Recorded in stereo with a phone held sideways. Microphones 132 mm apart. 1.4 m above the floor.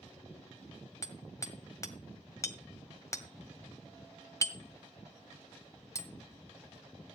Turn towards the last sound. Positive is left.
turn(degrees=25)  # may be behind; listen again after turning